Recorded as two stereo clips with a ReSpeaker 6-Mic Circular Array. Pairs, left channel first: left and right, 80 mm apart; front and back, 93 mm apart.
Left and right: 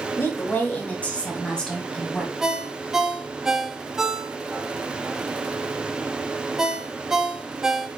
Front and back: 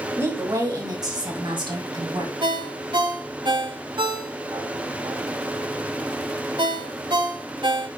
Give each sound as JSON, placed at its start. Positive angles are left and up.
{"t": 0.2, "sound": "a woman speaking", "azimuth_deg": 135, "distance_m": 1.6}
{"t": 2.4, "sound": "a ringtone", "azimuth_deg": -175, "distance_m": 0.9}